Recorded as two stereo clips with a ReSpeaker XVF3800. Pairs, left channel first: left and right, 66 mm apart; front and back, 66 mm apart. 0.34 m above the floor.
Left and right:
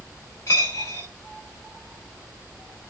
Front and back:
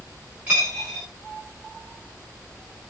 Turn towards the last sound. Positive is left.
turn(degrees=115)